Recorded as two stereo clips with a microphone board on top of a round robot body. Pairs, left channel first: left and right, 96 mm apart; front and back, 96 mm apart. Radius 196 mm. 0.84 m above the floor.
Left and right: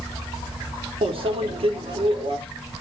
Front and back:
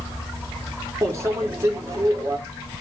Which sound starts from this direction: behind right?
A microwave, at 1.0 s.